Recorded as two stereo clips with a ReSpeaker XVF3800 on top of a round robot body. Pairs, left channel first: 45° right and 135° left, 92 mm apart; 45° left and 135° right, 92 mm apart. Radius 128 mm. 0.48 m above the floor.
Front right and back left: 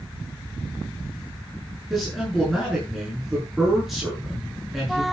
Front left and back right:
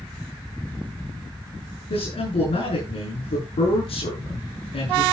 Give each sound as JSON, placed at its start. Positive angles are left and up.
{"t": 1.9, "sound": "a man speaking", "azimuth_deg": 45, "distance_m": 8.0}